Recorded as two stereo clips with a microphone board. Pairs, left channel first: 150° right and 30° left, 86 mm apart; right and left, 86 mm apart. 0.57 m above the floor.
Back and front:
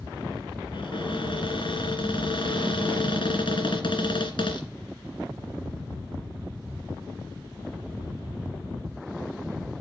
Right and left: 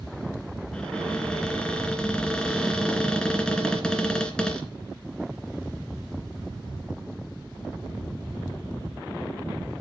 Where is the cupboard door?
170° right, 2.5 m.